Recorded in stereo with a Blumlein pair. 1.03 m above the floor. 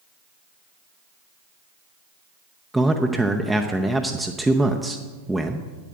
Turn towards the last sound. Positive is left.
turn(degrees=-5)